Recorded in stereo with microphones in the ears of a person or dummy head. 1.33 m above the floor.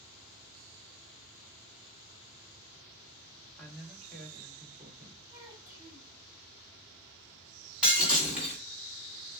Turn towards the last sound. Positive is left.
turn(degrees=-10)  # may be behind; listen again after turning